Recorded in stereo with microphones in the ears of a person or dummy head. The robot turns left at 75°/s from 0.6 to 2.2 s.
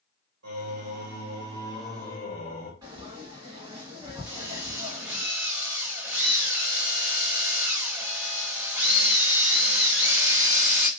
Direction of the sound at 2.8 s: 20° right (ahead or behind).